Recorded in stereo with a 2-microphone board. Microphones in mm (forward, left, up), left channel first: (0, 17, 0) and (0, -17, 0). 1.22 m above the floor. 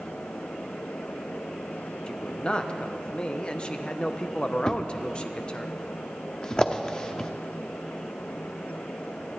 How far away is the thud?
About 0.7 m.